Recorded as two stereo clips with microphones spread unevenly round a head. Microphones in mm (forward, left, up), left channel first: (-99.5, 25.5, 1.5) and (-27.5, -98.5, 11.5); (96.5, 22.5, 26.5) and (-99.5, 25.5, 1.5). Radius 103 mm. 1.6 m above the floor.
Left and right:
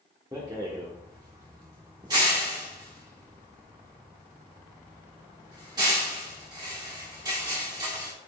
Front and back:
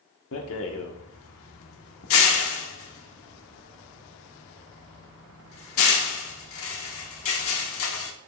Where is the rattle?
15° left, 1.0 m.